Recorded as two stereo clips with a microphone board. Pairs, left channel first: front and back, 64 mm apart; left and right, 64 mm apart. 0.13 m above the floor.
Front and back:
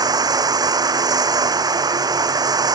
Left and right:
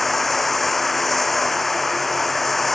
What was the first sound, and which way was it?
Running water, 175° left.